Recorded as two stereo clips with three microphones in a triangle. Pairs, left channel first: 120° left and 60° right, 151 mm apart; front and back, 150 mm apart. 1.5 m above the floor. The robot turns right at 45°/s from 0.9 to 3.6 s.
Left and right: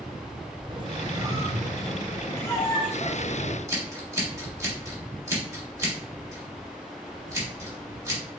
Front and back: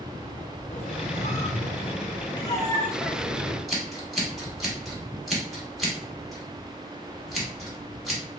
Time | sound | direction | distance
0.7 | a squeak | 15° right | 0.6 m
3.7 | scissors | 90° right | 1.2 m